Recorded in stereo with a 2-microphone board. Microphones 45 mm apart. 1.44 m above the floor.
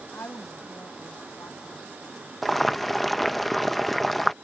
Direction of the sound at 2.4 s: Centre (ahead or behind).